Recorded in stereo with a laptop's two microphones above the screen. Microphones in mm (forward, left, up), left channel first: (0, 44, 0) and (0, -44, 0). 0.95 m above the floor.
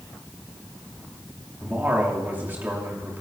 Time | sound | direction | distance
1.6 | a man speaking | 25° right (ahead or behind) | 2.5 m